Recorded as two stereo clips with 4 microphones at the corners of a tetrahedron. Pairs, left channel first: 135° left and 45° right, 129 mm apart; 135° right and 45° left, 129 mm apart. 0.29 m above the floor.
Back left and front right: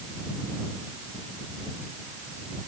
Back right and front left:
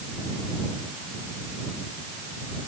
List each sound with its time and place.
Only background noise.